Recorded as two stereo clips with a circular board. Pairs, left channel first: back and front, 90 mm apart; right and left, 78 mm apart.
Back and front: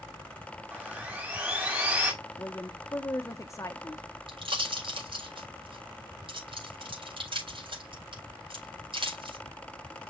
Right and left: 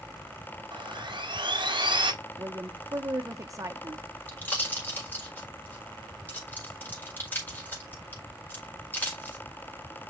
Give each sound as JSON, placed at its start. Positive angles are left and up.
{"t": 0.7, "sound": "sawing", "azimuth_deg": 75, "distance_m": 2.5}
{"t": 2.4, "sound": "a woman speaking", "azimuth_deg": 130, "distance_m": 1.1}
{"t": 4.3, "sound": "a pop", "azimuth_deg": -20, "distance_m": 4.5}